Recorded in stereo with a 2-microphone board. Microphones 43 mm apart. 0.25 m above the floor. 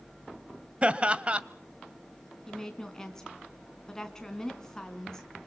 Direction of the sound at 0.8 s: 25° right (ahead or behind).